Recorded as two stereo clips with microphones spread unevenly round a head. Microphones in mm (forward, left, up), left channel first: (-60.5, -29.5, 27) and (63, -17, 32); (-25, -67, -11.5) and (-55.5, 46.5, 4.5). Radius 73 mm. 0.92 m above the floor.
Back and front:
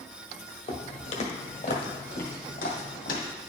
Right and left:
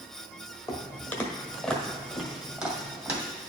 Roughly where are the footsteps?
Behind right.